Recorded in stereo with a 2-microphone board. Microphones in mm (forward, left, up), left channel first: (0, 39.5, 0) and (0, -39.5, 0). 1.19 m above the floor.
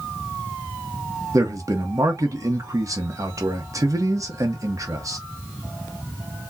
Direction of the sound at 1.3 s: 45° right (ahead or behind).